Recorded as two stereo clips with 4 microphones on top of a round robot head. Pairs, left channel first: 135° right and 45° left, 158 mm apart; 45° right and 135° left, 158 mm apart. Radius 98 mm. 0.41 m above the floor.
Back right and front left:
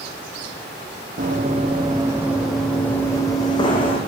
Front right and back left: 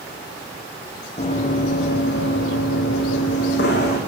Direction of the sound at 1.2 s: 5° left.